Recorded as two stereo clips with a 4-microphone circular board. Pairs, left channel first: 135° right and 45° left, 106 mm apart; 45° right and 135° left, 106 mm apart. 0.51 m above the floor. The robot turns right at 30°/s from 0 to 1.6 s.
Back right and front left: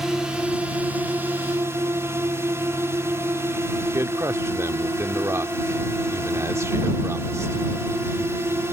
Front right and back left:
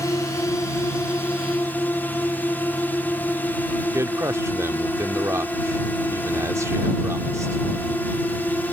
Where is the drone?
40° right; by 8.7 s 10° left.